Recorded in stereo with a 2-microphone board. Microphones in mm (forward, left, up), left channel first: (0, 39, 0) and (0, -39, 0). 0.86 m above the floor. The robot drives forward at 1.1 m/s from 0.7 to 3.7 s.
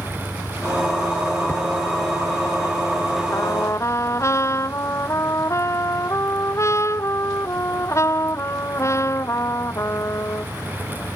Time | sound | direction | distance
0.0 | an engine running | 20° right (ahead or behind) | ?
1.5 | hammering | 20° left (ahead or behind) | ?
3.3 | a trumpet | 40° left (ahead or behind) | ?